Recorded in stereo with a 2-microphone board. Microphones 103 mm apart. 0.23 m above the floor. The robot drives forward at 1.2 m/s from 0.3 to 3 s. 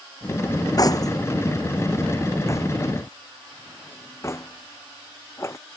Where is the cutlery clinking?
40° left (ahead or behind); by 5.6 s 30° left (ahead or behind).